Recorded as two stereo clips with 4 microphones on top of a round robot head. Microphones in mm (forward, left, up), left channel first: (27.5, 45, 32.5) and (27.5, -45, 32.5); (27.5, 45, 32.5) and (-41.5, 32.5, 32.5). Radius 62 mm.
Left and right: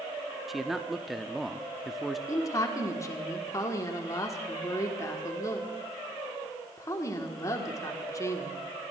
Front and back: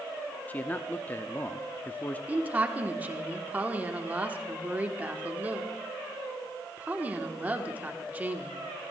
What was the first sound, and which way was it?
A man speaking, 5° right.